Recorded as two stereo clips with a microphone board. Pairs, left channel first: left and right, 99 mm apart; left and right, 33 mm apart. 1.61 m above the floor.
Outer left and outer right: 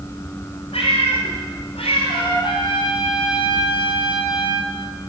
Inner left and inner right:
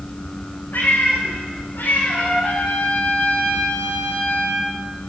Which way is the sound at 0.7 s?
80° left.